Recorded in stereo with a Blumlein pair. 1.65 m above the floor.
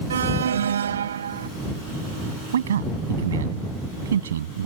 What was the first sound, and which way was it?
An alarm, 65° right.